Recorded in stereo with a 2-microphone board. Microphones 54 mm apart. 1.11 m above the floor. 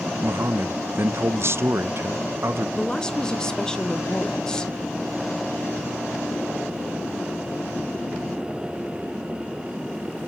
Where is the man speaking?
50° right (ahead or behind), 0.5 m.